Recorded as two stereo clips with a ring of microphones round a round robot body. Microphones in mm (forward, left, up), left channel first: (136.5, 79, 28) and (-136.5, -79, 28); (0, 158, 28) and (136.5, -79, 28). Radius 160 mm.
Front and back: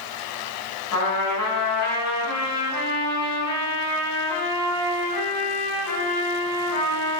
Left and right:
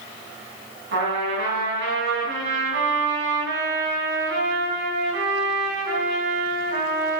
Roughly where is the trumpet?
Ahead.